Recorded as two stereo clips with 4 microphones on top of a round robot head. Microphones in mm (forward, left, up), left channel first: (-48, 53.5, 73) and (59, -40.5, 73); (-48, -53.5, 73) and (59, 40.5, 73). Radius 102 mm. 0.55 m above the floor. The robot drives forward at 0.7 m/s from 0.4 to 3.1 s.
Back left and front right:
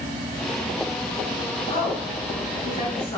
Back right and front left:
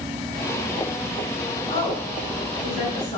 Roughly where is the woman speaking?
Behind.